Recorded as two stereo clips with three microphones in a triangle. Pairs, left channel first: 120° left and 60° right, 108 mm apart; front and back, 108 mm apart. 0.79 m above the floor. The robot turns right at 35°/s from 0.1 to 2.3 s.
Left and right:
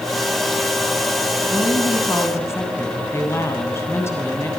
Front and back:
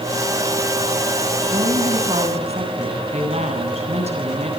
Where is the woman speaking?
155° left, 8.5 m; by 4.5 s 175° right, 8.5 m.